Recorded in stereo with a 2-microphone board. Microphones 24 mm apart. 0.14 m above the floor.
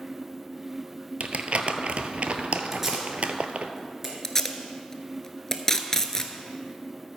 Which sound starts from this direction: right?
Crumpling, at 1.2 s.